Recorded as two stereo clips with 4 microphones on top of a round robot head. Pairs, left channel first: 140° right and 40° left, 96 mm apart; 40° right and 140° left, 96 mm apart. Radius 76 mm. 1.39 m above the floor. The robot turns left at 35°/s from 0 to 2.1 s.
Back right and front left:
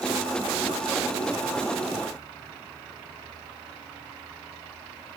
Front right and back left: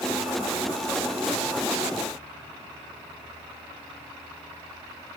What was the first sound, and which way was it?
Only background noise.